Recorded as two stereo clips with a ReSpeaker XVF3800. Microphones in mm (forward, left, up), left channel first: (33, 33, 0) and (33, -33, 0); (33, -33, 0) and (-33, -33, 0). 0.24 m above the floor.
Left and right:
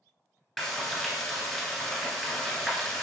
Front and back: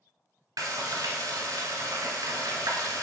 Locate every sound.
0.6 s frying: straight behind, 1.0 m